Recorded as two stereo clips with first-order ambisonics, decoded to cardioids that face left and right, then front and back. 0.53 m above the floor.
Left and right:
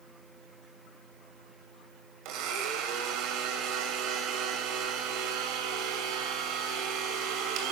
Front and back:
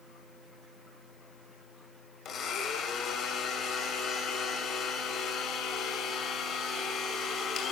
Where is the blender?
60° right, 2.5 m.